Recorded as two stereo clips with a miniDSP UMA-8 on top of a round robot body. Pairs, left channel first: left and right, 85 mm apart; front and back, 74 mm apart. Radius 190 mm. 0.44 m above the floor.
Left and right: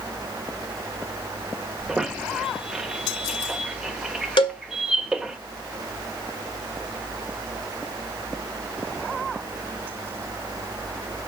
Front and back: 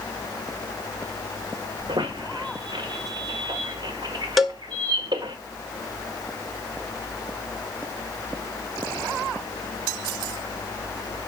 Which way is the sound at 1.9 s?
175° right.